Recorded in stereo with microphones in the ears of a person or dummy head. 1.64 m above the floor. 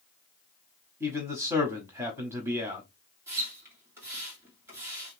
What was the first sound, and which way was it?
A man speaking, 10° right (ahead or behind).